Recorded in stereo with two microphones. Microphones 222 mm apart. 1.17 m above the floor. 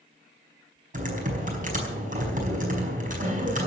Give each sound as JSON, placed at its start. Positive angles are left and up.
{"t": 0.9, "sound": "typing on a keyboard", "side_deg": -40, "distance_m": 4.5}